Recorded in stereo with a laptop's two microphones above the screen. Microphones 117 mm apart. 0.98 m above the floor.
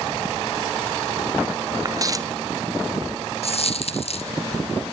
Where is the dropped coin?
60° left (ahead or behind), 1.7 m.